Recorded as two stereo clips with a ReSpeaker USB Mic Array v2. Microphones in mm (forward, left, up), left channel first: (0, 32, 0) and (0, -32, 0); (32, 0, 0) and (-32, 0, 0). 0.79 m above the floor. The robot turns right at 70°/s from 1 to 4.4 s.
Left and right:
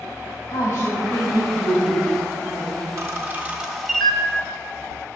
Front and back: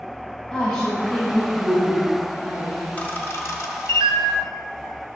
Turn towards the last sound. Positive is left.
turn(degrees=40)